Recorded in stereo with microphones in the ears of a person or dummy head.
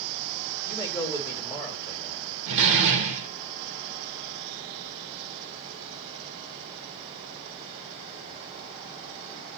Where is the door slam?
70° right (ahead or behind), 0.8 m.